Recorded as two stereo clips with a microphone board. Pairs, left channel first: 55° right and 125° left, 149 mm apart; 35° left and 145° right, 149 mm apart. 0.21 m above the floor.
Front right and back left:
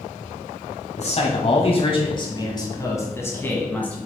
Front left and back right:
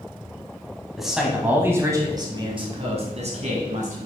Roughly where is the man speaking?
Ahead right.